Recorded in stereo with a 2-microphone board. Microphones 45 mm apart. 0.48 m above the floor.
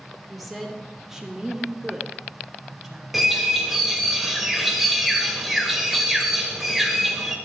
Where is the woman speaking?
Centre (ahead or behind), 1.6 m; by 3.0 s 20° right (ahead or behind), 2.5 m.